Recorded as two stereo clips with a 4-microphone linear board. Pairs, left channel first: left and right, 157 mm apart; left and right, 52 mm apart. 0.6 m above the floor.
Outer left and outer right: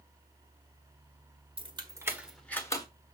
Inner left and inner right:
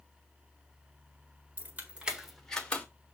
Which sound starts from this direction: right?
Keys jangling, at 1.6 s.